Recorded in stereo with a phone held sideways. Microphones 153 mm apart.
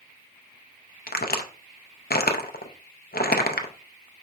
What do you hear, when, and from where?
1.1 s a crack: 90° left, 0.5 m